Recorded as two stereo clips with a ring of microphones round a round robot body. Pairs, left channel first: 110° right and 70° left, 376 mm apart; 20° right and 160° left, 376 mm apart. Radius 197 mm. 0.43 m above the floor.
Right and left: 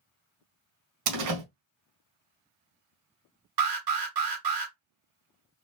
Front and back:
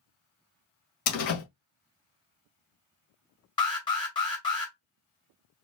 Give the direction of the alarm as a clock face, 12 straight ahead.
10 o'clock.